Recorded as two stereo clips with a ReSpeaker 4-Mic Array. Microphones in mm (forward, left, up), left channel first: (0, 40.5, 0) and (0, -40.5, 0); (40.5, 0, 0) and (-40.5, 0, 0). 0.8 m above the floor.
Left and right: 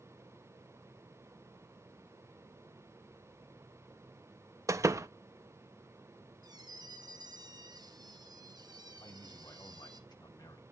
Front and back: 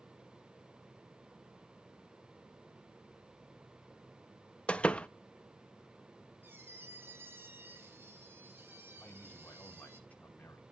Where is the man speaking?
70° left, 2 m.